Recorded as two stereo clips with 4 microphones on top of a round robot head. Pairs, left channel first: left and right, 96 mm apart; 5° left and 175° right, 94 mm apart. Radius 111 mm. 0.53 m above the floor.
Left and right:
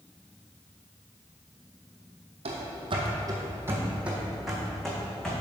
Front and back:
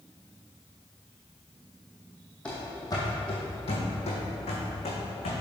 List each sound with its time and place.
2.5 s running footsteps: 75° right, 1.5 m; by 5.3 s 10° left, 3 m